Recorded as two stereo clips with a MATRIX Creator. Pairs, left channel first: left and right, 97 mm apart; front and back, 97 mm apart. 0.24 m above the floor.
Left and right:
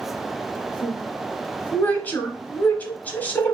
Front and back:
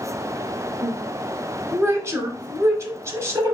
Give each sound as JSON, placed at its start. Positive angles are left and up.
{"t": 0.8, "sound": "a woman speaking", "azimuth_deg": 150, "distance_m": 1.1}